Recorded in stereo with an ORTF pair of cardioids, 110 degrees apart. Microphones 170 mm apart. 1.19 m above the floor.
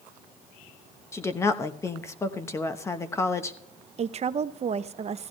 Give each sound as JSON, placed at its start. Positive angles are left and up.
{"t": 1.1, "sound": "a woman speaking", "azimuth_deg": 15, "distance_m": 1.0}
{"t": 4.0, "sound": "a woman speaking", "azimuth_deg": -40, "distance_m": 0.7}